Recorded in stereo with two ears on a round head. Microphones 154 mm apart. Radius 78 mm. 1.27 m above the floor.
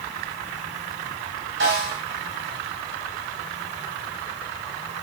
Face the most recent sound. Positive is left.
turn(degrees=-70)  # may be behind; listen again after turning